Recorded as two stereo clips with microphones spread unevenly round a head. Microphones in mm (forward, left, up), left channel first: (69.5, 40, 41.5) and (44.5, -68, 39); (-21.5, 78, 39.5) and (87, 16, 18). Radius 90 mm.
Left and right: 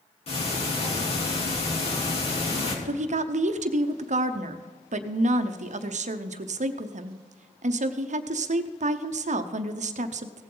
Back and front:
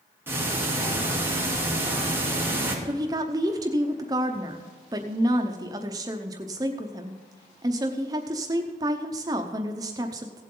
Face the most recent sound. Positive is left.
turn(degrees=-95)